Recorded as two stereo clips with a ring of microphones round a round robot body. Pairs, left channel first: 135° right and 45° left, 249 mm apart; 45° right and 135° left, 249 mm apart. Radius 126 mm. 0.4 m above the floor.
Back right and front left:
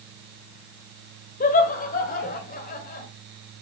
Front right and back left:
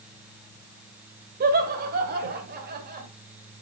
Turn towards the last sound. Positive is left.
turn(degrees=180)